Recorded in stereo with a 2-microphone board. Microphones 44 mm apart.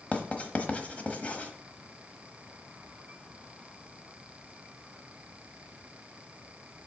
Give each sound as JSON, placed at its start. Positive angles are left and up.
{"t": 0.1, "sound": "writing", "side_deg": 30, "distance_m": 1.1}